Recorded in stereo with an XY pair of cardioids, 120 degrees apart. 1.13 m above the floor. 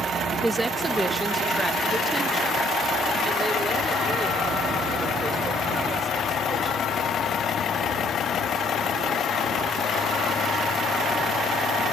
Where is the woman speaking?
10° right, 1.3 m; by 8.6 s 30° right, 7 m.